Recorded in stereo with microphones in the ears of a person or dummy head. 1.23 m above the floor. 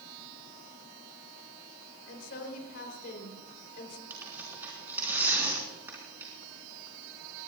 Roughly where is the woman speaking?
Left.